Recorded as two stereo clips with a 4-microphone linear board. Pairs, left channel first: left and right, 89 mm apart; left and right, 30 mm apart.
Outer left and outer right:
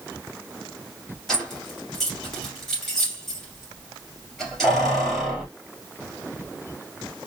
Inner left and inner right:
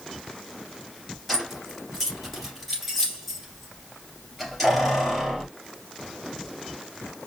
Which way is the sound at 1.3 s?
Centre (ahead or behind).